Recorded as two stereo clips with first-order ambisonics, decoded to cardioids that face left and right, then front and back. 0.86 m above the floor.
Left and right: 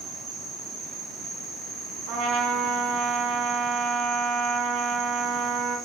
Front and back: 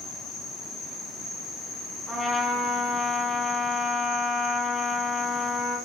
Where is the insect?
35° right, 1.3 m.